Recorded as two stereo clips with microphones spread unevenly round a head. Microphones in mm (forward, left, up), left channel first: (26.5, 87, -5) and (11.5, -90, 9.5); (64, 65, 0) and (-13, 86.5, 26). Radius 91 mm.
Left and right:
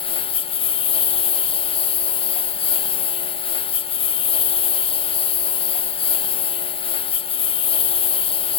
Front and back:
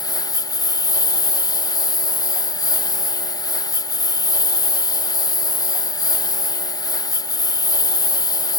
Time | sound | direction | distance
0.0 | a lawn mower | 25° left | ?